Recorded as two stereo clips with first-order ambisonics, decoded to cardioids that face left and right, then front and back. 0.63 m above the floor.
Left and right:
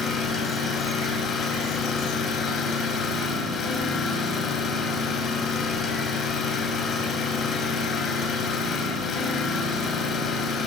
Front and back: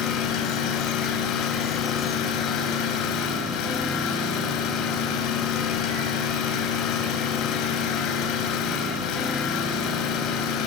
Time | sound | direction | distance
0.0 | an engine running | 30° left | 3.5 m